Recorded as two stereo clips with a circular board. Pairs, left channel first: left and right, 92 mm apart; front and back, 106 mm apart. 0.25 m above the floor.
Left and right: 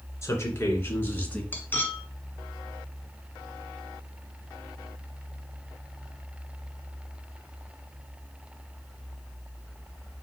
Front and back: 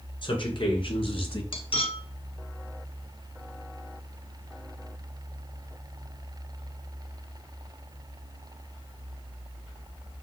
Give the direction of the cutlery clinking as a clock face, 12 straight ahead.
11 o'clock.